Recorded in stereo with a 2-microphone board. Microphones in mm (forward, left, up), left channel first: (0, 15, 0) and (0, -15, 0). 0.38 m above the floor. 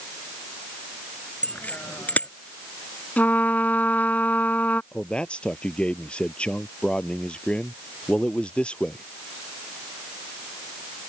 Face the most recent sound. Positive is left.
turn(degrees=35)  # may be behind; listen again after turning